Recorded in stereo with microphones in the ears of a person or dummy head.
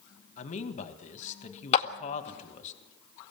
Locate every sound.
0.4 s a man speaking: 40° left (ahead or behind), 2 m
1.7 s a clap: 35° left (ahead or behind), 1.7 m